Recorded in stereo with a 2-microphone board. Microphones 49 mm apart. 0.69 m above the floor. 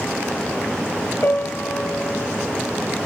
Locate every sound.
1.2 s a piano: 50° left (ahead or behind), 2 m